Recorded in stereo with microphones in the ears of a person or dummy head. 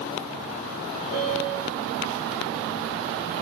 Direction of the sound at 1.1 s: 20° left (ahead or behind).